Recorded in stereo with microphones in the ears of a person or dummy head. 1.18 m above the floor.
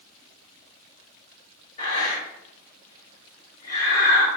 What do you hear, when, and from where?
1.8 s breathing: 35° left (ahead or behind), 2.5 m